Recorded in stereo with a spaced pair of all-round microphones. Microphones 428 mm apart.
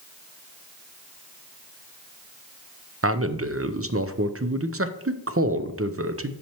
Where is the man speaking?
35° right (ahead or behind), 0.5 m.